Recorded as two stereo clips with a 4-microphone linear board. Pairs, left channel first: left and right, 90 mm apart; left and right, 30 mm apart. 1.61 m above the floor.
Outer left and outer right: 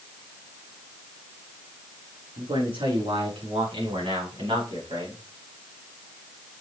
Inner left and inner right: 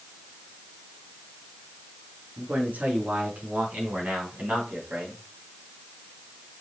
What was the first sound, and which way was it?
A man speaking, 80° right.